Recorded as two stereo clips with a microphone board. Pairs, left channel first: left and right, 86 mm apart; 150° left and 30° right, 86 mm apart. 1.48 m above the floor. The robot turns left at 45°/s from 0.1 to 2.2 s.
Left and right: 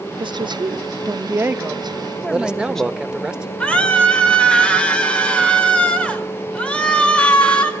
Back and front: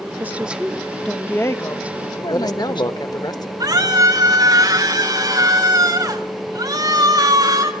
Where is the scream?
10° left, 4.5 m.